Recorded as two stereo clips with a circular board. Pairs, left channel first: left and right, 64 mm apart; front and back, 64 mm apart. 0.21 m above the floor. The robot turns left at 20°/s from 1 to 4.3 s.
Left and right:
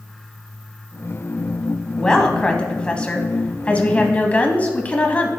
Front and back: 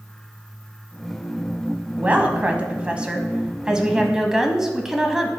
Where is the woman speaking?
155° left, 1.1 m; by 5.3 s 110° left, 1.1 m.